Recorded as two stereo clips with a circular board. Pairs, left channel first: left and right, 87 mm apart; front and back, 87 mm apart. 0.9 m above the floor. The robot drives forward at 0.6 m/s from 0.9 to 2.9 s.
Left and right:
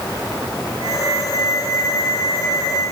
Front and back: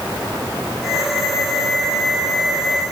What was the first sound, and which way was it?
Only background noise.